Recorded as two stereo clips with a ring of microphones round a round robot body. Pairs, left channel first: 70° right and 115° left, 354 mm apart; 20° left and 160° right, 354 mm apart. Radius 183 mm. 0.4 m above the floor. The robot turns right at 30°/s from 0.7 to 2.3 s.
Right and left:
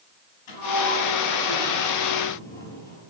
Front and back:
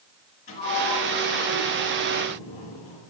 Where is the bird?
I don't hear a bird.